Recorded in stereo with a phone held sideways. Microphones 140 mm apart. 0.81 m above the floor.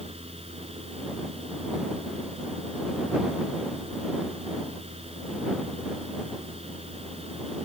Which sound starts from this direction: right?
A fan, at 0.0 s.